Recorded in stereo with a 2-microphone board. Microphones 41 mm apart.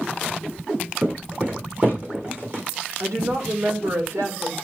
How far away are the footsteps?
About 5.5 m.